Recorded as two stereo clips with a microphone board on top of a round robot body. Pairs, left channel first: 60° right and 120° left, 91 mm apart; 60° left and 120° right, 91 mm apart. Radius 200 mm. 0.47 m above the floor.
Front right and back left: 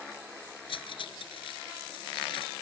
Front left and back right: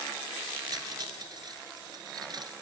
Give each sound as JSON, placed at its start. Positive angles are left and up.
{"t": 0.7, "sound": "cutlery clinking", "azimuth_deg": -80}